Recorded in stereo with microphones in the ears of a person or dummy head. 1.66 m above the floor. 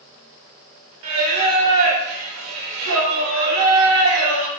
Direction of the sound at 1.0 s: 80° right.